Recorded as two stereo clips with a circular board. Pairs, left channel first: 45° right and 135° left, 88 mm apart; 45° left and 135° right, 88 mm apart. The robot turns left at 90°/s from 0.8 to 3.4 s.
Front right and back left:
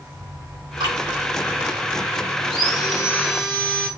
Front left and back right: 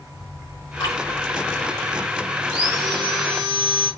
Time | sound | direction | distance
0.8 | dripping | 95° left | 5.5 m
2.4 | sawing | 50° right | 4 m